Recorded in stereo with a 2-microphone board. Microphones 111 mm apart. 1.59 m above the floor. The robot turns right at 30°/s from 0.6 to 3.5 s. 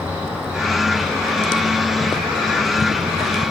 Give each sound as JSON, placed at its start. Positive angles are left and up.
{"t": 0.0, "sound": "an insect", "azimuth_deg": -170, "distance_m": 4.0}